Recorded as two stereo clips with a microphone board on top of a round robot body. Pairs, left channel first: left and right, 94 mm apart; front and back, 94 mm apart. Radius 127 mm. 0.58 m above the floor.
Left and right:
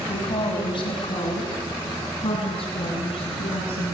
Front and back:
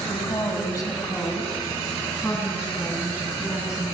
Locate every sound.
0.1 s a woman speaking: 65° left, 4 m; by 4.0 s 95° left, 8.5 m